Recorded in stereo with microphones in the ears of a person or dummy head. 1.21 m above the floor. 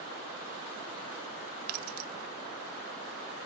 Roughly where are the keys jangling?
Right.